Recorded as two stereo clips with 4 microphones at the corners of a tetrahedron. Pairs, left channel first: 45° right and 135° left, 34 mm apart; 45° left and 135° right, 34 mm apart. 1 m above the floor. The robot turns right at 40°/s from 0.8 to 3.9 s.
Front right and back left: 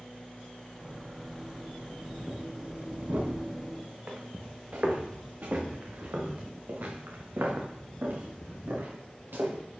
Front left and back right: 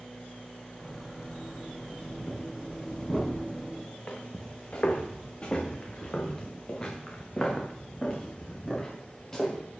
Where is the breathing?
75° left, 5 m; by 3.7 s 140° left, 5 m.